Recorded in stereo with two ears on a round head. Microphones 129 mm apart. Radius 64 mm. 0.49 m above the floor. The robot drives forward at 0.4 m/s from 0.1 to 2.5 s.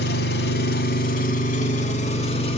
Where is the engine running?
80° left, 0.8 m; by 2.6 s 45° left (ahead or behind), 1.2 m.